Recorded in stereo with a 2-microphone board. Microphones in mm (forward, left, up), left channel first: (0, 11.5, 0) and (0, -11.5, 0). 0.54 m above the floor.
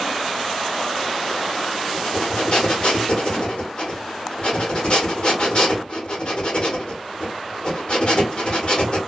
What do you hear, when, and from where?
1.9 s breathing: 45° left (ahead or behind), 1.2 m